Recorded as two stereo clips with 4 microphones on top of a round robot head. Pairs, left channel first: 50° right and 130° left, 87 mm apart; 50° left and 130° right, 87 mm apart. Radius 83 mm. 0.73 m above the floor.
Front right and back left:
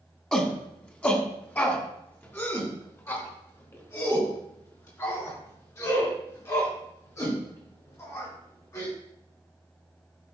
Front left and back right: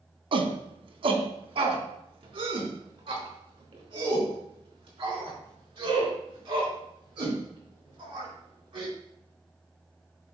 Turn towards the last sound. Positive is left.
turn(degrees=-100)